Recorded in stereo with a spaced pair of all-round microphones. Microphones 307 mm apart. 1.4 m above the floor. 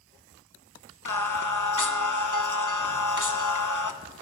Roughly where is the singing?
Left.